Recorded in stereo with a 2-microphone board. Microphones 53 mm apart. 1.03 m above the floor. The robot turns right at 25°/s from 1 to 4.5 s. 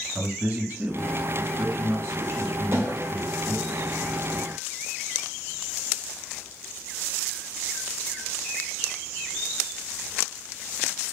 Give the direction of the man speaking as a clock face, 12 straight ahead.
5 o'clock.